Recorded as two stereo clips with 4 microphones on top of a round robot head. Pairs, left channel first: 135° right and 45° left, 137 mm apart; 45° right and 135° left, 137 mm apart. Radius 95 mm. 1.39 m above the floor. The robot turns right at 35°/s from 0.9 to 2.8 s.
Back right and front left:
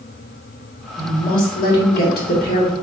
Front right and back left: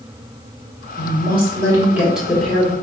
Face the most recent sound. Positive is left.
turn(degrees=-115)